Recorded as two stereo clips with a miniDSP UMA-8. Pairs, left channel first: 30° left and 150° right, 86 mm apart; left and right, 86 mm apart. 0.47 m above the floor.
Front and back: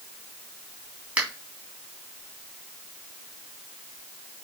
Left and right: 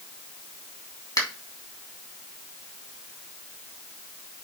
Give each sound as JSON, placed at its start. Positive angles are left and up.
{"t": 1.2, "sound": "a finger snap", "azimuth_deg": 135, "distance_m": 3.0}